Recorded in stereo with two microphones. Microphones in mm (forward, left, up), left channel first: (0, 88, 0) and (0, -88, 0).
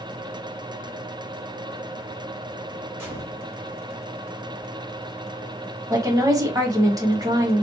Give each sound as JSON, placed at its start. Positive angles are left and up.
{"t": 3.0, "sound": "a gunshot", "side_deg": -10, "distance_m": 2.0}
{"t": 5.9, "sound": "a woman speaking", "side_deg": -20, "distance_m": 1.0}